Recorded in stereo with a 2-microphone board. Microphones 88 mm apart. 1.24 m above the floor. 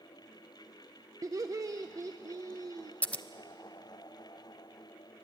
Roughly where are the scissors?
Centre.